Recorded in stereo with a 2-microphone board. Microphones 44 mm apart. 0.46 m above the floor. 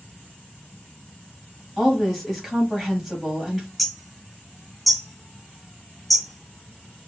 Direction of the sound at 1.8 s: Centre (ahead or behind).